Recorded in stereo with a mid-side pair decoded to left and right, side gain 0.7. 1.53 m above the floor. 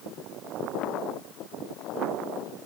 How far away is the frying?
I don't hear frying.